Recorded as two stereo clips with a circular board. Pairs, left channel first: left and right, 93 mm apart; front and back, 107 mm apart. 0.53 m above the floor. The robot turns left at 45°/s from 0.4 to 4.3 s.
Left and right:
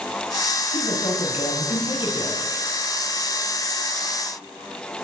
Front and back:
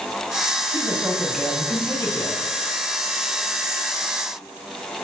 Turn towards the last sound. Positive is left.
turn(degrees=-40)